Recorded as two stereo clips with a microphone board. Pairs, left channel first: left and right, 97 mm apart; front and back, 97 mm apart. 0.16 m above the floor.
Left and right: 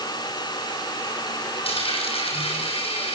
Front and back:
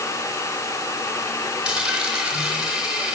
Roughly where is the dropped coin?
Left.